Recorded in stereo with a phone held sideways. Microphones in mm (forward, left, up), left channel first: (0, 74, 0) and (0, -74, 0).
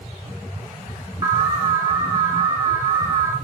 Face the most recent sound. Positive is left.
turn(degrees=-25)  # may be behind; listen again after turning